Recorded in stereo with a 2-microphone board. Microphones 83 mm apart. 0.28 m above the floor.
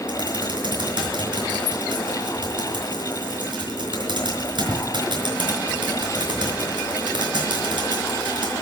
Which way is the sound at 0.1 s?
65° right (ahead or behind).